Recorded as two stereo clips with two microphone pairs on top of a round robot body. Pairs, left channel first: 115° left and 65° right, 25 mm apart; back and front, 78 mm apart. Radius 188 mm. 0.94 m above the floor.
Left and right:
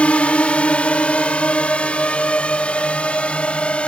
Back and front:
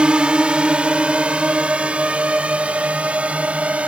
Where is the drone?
80° left; by 3.9 s 75° left.